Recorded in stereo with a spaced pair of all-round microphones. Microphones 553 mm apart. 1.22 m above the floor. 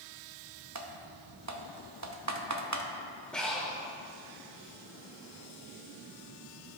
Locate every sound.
0.8 s typing on a keyboard: 30° right (ahead or behind), 0.6 m
3.3 s breathing: centre (ahead or behind), 1.2 m